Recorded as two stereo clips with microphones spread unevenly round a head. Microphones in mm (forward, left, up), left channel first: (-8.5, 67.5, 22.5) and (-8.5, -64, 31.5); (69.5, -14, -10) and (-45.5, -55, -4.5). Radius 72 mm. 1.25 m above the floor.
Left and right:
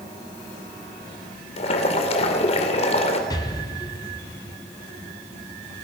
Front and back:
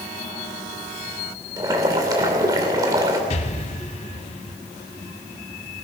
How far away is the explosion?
About 1.6 m.